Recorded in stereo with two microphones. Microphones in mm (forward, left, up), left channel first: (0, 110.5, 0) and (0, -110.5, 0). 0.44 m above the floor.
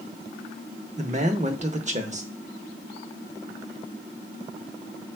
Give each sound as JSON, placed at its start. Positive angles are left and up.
{"t": 1.0, "sound": "a man speaking", "side_deg": -35, "distance_m": 0.9}